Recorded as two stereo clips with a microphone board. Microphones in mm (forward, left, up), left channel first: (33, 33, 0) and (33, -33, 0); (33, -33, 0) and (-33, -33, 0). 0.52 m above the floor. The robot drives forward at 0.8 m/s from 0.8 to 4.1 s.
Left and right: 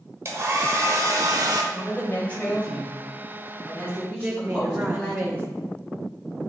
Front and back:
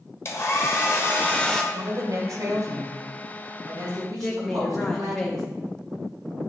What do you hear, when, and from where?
0.2 s a hair dryer: 45° right, 1.1 m; by 1.6 s 85° right, 0.8 m
1.7 s a woman speaking: 150° left, 2 m; by 5.2 s 165° left, 4 m
4.2 s a woman speaking: 75° right, 0.7 m